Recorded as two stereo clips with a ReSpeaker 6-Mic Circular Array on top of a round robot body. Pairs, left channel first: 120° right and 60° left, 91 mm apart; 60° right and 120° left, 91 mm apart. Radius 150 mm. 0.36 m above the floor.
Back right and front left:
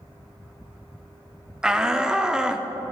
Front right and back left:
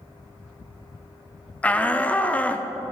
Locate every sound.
1.6 s a shout: 10° right, 0.9 m